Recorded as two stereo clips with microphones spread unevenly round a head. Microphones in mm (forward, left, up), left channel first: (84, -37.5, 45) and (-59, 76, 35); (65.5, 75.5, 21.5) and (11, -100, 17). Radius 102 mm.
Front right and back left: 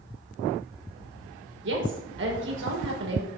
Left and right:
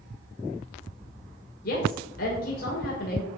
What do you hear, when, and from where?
1.6 s a woman speaking: 120° left, 6 m